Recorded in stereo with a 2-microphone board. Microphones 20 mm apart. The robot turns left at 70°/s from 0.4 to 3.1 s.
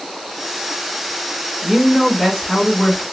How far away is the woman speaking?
About 1.8 m.